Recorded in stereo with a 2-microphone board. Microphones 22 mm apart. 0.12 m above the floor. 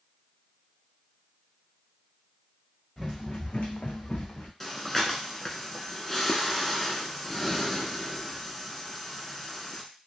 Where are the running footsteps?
15° left (ahead or behind), 0.9 m; by 4.5 s 50° left (ahead or behind), 1.0 m.